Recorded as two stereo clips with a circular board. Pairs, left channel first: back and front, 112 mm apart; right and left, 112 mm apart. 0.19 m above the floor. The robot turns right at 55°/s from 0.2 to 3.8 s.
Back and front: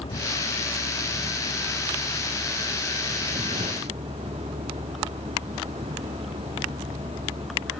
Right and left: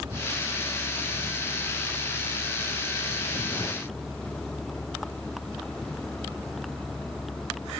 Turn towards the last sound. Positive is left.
turn(degrees=-5)